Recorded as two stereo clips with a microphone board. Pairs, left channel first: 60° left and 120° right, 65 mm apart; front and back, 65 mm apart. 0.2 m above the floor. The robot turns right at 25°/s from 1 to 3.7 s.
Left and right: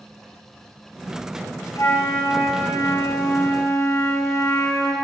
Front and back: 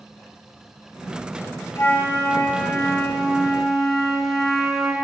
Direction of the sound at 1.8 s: 45° left.